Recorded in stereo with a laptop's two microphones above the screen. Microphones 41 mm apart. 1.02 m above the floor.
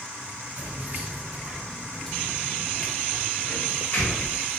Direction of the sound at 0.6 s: 55° right (ahead or behind).